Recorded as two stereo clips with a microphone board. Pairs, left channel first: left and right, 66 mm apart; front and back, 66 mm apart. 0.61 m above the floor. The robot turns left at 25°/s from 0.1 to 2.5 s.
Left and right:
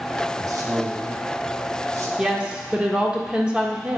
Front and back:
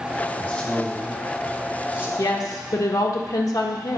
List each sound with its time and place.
0.4 s a man speaking: 65° right, 1.7 m; by 2.1 s 110° right, 1.7 m
2.2 s a woman speaking: 10° right, 1.3 m; by 4.0 s 15° right, 1.3 m